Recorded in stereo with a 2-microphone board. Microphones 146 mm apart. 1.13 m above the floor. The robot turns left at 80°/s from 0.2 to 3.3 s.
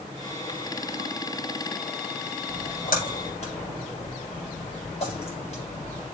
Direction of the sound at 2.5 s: 65° left (ahead or behind).